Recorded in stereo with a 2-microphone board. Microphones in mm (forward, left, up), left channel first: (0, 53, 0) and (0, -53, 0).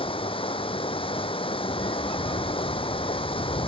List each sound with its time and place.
0.0 s running water: 60° left (ahead or behind)